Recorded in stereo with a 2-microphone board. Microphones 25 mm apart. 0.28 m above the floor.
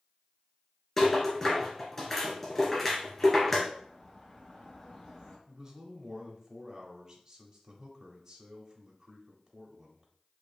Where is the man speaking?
15° right (ahead or behind), 0.9 m.